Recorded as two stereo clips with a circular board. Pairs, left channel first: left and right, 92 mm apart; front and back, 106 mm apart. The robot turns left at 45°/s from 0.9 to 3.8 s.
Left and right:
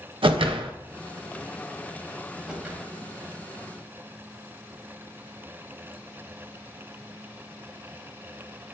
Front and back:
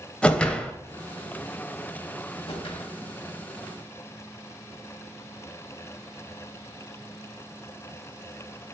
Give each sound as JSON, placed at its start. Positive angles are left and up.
{"t": 0.2, "sound": "a whoosh", "azimuth_deg": -80, "distance_m": 0.5}
{"t": 2.5, "sound": "a whoosh", "azimuth_deg": -10, "distance_m": 1.0}